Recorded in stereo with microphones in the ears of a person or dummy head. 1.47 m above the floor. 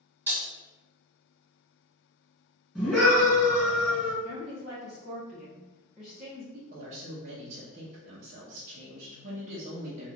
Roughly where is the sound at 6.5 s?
Right.